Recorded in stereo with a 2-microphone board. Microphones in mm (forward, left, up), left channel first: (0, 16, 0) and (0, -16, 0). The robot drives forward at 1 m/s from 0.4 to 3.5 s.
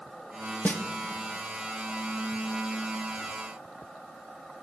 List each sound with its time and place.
0.7 s a snare drum: 60° left (ahead or behind), 0.9 m; by 0.8 s 70° left (ahead or behind), 0.8 m